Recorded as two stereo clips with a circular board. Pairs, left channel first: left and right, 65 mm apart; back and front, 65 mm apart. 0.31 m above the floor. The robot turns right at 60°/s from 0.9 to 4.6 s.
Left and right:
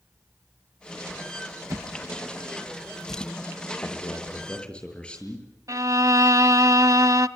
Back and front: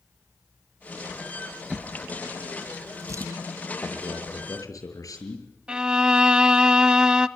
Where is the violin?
75° right, 0.7 m.